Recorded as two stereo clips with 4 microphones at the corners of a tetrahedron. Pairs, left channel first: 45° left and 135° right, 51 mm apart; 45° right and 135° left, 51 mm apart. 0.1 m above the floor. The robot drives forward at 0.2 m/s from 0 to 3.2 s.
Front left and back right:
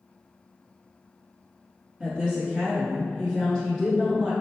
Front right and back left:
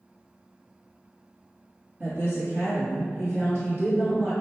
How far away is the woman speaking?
About 1.2 m.